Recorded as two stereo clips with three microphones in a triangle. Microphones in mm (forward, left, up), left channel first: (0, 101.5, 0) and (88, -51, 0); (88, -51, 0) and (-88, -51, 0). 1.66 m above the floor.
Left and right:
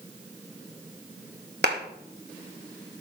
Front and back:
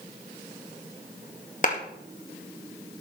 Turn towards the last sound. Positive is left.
turn(degrees=-45)